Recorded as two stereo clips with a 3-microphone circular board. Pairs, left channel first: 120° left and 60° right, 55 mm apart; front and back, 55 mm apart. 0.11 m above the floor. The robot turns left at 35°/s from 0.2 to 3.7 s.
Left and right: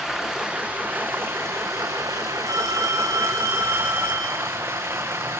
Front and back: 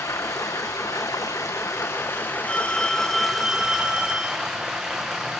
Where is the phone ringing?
65° right, 5 m; by 4.4 s 110° right, 5 m.